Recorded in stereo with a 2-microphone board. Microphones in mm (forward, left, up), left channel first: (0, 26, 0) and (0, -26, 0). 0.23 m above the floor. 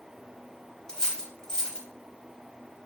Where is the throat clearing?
I don't hear throat clearing.